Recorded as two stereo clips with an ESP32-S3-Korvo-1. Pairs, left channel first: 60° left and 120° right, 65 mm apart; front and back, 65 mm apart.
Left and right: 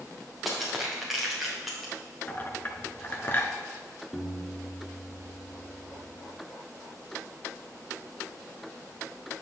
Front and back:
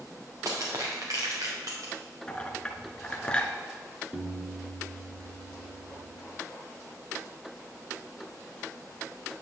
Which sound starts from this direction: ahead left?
A clink, at 2.3 s.